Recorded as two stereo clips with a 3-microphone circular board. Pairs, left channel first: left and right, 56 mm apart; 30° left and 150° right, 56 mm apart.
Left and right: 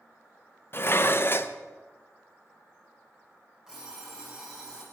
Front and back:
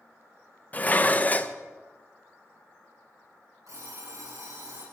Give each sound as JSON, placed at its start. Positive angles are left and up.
{"t": 0.7, "sound": "dishes clattering", "azimuth_deg": 75, "distance_m": 0.7}
{"t": 3.7, "sound": "an alarm clock", "azimuth_deg": -170, "distance_m": 8.5}